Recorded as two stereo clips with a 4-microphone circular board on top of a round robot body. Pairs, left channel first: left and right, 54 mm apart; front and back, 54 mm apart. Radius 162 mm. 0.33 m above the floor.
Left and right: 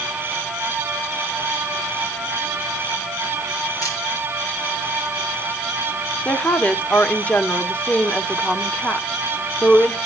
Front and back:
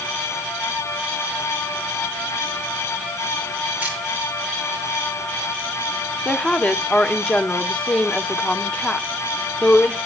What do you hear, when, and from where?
3.8 s a camera shutter: 115° left, 5 m
6.2 s a woman speaking: 55° left, 1.1 m